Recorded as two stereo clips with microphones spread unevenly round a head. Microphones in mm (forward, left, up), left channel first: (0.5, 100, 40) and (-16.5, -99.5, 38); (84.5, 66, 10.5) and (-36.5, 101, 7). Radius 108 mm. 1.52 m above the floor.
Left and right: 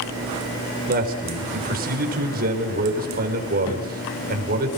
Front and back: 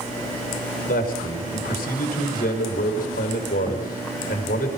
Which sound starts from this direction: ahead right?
A man speaking, at 0.9 s.